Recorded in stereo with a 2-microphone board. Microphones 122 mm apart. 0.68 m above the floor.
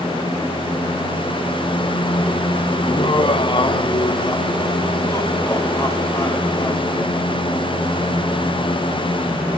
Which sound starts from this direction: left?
Laughter, at 2.8 s.